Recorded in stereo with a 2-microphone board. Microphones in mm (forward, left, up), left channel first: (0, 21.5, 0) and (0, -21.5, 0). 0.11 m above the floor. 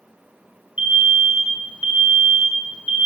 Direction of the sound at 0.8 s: 30° right (ahead or behind).